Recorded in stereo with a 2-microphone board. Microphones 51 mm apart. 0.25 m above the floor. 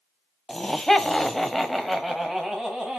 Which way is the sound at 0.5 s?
10° left (ahead or behind).